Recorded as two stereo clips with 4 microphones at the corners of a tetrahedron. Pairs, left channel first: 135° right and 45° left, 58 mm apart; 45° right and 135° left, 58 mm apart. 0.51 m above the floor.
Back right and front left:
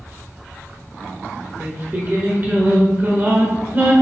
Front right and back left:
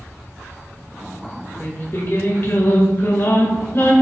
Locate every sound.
1.6 s singing: 5° right, 1.5 m